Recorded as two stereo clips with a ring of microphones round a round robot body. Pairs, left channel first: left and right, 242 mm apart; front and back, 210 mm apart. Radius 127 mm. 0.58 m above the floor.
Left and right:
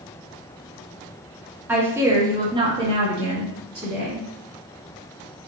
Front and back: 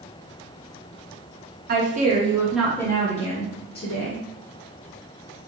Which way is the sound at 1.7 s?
170° right.